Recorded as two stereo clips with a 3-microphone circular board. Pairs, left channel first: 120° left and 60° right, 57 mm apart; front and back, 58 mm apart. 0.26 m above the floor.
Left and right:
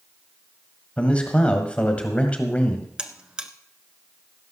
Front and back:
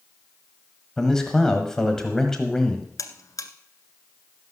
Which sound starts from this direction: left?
A man speaking, at 1.0 s.